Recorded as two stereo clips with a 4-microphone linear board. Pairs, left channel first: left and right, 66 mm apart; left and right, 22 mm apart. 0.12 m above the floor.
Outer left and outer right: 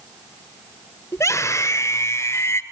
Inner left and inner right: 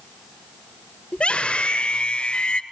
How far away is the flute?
I don't hear a flute.